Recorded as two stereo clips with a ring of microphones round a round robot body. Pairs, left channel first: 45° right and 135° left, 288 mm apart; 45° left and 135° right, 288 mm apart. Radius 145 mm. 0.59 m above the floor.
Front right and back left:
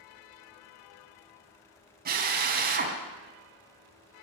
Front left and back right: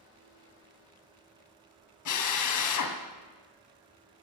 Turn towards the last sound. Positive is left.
turn(degrees=75)